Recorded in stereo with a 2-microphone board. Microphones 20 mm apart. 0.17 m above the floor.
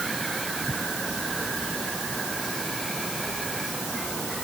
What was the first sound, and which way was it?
Only background noise.